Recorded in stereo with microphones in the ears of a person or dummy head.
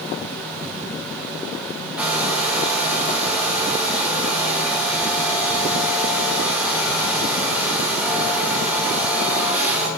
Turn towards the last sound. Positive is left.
turn(degrees=0)  # may be behind; listen again after turning